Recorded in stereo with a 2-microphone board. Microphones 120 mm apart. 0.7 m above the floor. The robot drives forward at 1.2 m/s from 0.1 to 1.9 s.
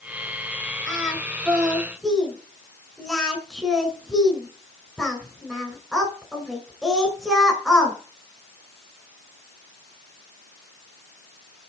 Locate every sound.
0.9 s singing: centre (ahead or behind), 7 m